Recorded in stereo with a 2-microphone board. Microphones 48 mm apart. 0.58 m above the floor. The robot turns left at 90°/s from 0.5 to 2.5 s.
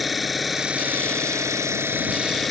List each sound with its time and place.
0.0 s an engine running: straight ahead; by 2.5 s straight behind